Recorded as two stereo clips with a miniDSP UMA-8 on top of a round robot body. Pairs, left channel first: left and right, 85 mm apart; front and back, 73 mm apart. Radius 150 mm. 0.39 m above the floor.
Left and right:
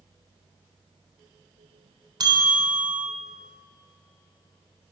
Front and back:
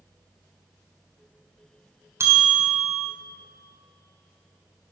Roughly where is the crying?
No crying in this recording.